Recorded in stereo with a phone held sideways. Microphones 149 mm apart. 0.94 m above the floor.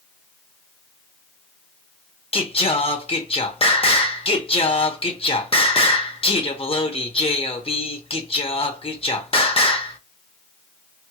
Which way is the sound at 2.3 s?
40° left (ahead or behind).